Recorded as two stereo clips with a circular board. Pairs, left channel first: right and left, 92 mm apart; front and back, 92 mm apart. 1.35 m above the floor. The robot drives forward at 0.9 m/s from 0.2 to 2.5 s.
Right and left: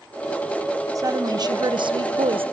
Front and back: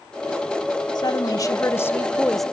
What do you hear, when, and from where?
0.9 s a woman speaking: 40° left, 1.8 m; by 2.5 s 90° left, 1.1 m